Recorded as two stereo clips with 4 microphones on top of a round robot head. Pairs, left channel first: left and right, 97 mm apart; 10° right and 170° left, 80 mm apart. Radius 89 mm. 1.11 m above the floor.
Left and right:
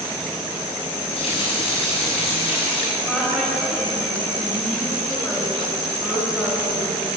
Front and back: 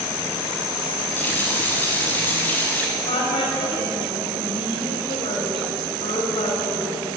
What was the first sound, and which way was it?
A running tap, 60° left.